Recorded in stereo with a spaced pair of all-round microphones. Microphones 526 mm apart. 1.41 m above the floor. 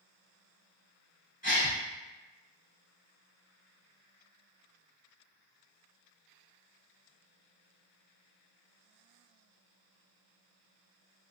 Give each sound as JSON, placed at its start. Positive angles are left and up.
{"t": 1.4, "sound": "a gasp", "side_deg": 15, "distance_m": 1.5}